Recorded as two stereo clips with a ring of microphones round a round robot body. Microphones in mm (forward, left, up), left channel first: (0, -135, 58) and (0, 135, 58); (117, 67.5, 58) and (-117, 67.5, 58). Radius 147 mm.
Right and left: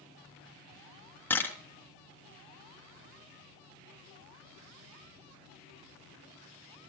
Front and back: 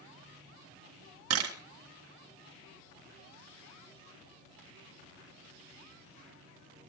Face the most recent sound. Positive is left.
turn(degrees=-170)